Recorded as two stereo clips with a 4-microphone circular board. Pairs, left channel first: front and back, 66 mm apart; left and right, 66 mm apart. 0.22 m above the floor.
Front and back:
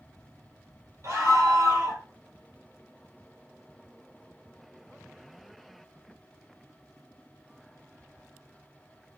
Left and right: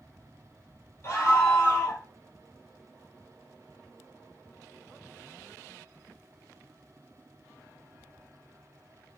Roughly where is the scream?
Behind left.